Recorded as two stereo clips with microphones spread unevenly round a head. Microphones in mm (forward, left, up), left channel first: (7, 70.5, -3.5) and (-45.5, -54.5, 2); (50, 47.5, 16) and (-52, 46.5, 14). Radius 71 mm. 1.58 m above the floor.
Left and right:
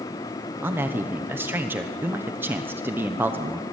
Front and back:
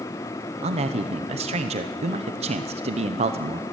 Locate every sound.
0.6 s a man speaking: 175° left, 1.0 m